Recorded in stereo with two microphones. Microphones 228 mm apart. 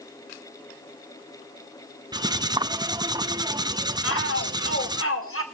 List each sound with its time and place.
2.1 s cutlery clinking: 20° right (ahead or behind), 0.6 m
4.0 s a shout: 70° left (ahead or behind), 1.1 m